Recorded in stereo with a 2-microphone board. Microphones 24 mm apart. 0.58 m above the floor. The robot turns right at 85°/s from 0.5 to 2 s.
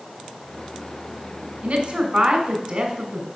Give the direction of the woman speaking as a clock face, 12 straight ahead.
2 o'clock.